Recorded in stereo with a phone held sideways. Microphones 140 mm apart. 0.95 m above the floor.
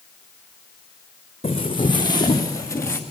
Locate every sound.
1.4 s footsteps: 45° left (ahead or behind), 3 m; by 3.0 s 20° left (ahead or behind), 3.5 m